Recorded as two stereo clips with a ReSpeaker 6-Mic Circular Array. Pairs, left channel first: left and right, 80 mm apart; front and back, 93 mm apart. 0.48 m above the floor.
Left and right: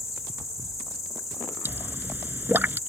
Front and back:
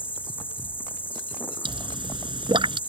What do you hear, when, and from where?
0.0 s an insect: 60° left
1.6 s a pop: 155° right